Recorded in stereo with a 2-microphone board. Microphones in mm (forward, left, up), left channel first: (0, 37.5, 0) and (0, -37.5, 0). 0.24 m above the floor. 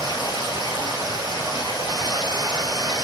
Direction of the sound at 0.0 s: 80° left.